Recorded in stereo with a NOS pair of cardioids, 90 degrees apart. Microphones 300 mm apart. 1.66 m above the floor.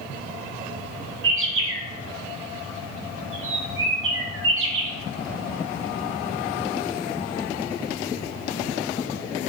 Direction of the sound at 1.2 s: 45° right.